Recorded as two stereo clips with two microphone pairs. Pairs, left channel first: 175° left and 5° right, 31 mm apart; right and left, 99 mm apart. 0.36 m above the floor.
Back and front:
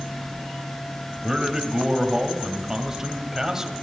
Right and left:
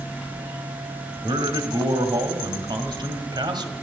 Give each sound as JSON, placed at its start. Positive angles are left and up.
{"t": 1.2, "sound": "a man speaking", "azimuth_deg": 65, "distance_m": 1.9}